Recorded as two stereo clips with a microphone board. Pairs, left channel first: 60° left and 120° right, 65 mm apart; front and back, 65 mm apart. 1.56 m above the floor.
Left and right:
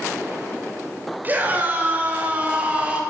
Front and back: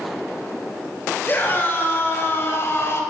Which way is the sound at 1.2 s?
60° right.